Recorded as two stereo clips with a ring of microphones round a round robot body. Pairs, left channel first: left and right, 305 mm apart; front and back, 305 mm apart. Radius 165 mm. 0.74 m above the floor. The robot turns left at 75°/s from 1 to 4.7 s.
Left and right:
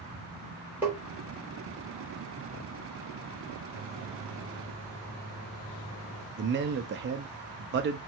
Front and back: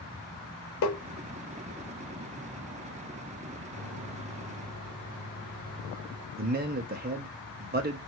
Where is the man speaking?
130° right, 0.5 m.